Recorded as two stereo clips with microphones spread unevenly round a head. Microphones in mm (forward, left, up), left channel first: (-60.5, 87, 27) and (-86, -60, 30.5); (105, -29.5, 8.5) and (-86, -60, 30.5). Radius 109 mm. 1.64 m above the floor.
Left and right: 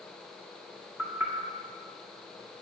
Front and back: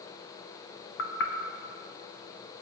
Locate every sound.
1.0 s knocking: 15° right, 1.0 m